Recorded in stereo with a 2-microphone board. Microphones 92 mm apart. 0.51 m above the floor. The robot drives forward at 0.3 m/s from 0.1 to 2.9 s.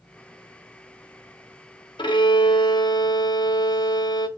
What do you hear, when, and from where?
2.0 s a violin: 60° left (ahead or behind), 0.6 m; by 4.3 s 55° left (ahead or behind), 0.6 m